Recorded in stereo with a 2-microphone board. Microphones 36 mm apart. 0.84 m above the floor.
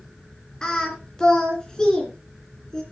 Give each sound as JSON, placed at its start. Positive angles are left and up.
{"t": 0.6, "sound": "singing", "side_deg": 20, "distance_m": 2.5}